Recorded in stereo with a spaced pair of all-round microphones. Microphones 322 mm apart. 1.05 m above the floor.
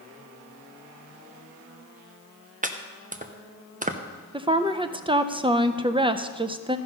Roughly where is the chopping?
Right.